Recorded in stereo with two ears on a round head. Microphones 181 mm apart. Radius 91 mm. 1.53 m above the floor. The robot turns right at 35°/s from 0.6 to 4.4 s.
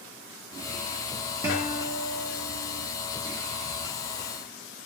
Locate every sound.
1.4 s a guitar: 10° right, 0.8 m; by 2.9 s 40° left, 0.8 m